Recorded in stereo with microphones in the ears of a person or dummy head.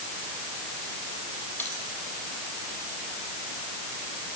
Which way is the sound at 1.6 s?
10° left (ahead or behind).